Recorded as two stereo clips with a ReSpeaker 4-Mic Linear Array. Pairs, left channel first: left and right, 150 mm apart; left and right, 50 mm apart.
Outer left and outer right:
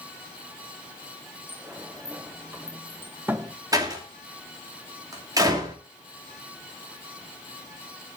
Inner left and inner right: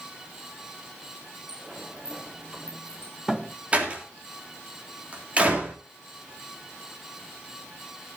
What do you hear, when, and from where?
1.5 s a sliding door: 15° right (ahead or behind), 0.9 m
3.7 s a door slam: 25° right (ahead or behind), 3 m